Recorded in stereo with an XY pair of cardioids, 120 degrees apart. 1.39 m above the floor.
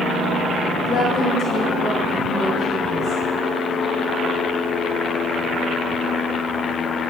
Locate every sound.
0.8 s a woman speaking: 50° left, 0.9 m; by 3.2 s 65° left, 2 m